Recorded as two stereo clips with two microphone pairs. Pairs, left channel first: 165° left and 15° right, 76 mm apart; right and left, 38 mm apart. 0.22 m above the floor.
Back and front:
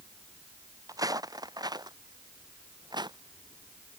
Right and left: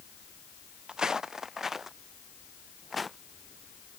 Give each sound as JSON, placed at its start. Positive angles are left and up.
{"t": 0.9, "sound": "footsteps", "azimuth_deg": 25}